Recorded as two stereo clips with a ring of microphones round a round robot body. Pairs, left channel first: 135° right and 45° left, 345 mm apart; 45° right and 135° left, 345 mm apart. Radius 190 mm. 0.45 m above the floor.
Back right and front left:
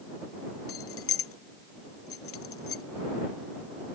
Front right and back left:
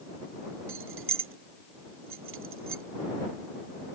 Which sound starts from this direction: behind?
Keys jangling, at 0.7 s.